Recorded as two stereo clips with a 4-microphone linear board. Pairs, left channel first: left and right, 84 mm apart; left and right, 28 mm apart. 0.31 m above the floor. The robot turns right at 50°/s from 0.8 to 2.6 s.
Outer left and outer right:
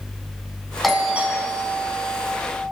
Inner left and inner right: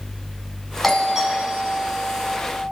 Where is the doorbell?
Straight behind, 3.5 m; by 2.3 s 110° right, 3.5 m.